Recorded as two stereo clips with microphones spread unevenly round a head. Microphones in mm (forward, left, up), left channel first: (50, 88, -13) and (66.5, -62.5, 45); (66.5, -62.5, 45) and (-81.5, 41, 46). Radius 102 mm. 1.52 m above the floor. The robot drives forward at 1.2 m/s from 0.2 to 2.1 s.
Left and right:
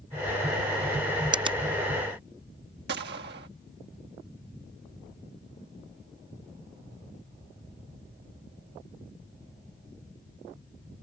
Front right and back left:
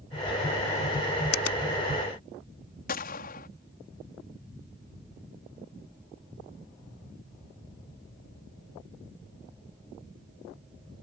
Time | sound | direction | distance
1.3 | a finger snap | 30° right | ?
2.9 | a gunshot | 75° right | ?